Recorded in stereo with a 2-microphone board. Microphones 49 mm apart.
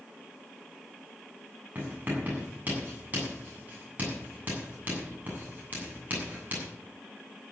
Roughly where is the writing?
Right.